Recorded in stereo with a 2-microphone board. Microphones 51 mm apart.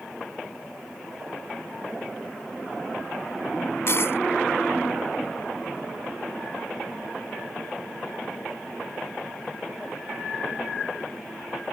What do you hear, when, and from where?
3.9 s a dropped coin: 55° left (ahead or behind)